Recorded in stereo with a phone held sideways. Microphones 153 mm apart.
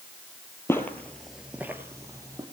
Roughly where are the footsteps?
Centre.